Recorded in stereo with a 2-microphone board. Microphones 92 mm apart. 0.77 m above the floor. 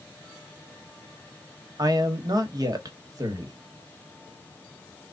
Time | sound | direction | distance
1.8 | a man speaking | 45° right (ahead or behind) | 1.2 m